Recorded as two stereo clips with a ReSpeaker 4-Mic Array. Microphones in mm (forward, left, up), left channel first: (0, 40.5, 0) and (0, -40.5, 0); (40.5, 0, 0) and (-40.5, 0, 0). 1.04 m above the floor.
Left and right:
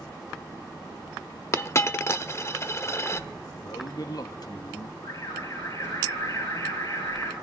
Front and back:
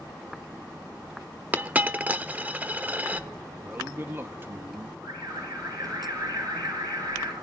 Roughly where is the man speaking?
Behind left.